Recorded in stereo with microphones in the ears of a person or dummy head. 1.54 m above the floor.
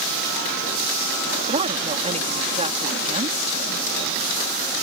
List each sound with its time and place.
1.5 s a woman speaking: 30° right (ahead or behind)